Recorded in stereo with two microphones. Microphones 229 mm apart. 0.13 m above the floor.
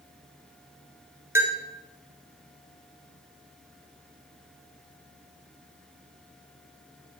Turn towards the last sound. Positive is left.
turn(degrees=-10)  # may be behind; listen again after turning